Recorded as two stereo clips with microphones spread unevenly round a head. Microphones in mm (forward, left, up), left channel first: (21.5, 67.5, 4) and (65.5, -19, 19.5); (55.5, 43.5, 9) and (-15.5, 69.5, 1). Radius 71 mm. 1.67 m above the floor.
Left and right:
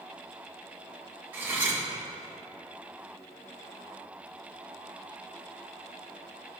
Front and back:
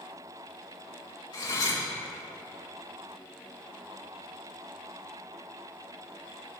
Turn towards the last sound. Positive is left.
turn(degrees=5)